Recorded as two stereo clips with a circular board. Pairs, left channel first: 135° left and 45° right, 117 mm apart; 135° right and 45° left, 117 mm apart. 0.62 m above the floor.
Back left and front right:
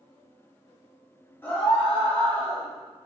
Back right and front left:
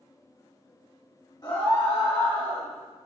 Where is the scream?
160° right, 1.6 m; by 2.7 s 145° right, 2.5 m.